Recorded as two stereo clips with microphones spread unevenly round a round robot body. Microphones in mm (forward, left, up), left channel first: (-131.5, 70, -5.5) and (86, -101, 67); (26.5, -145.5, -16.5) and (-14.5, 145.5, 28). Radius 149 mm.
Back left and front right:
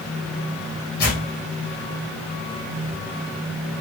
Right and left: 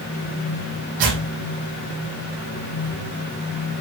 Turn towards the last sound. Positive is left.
turn(degrees=80)